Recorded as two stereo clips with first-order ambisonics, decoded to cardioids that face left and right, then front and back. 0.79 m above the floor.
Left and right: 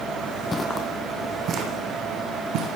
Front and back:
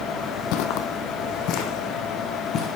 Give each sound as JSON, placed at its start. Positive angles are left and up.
{"t": 0.5, "sound": "footsteps", "azimuth_deg": 15, "distance_m": 1.6}